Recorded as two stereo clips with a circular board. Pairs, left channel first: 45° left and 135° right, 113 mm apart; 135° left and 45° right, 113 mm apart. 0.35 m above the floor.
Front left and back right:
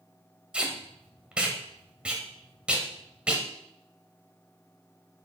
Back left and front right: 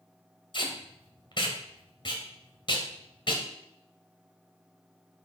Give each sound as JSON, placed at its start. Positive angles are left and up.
{"t": 0.5, "sound": "tape being pulled", "azimuth_deg": 150, "distance_m": 1.9}